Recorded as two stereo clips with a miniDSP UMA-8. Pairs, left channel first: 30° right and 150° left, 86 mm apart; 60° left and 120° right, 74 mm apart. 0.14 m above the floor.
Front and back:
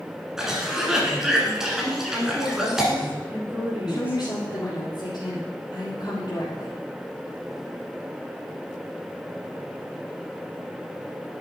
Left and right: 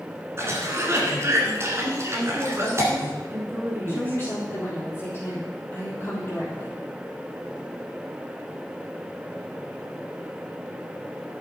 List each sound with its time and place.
0.4 s a cough: 130° right, 1.5 m
2.1 s a woman speaking: 155° right, 1.9 m
3.9 s a woman speaking: 5° left, 3.5 m